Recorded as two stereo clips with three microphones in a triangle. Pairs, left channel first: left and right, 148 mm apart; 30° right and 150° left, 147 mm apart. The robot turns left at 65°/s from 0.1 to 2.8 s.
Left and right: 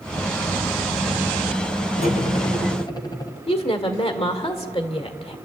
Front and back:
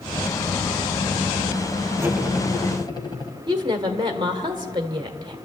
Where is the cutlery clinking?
80° left, 1.6 m; by 3.3 s 30° left, 1.6 m.